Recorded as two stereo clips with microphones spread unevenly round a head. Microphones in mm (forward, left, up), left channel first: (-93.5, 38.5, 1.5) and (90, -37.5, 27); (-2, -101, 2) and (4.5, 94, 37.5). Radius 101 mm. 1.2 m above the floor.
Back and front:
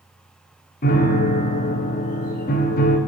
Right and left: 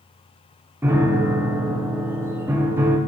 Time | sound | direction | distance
0.8 | a piano | 140° left | 0.7 m